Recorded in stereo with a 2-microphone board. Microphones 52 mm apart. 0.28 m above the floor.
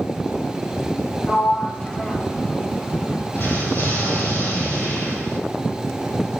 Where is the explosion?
55° left (ahead or behind), 2 m.